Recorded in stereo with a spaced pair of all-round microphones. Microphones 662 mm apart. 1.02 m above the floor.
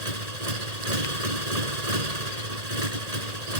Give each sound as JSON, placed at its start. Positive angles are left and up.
{"t": 0.0, "sound": "a motorcycle", "side_deg": -70}